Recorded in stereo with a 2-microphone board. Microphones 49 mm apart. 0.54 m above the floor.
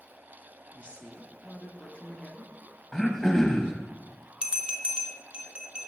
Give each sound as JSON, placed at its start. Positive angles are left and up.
{"t": 0.7, "sound": "a woman speaking", "side_deg": 25, "distance_m": 0.7}
{"t": 2.9, "sound": "throat clearing", "side_deg": 10, "distance_m": 0.7}
{"t": 4.4, "sound": "a bell", "side_deg": -20, "distance_m": 0.7}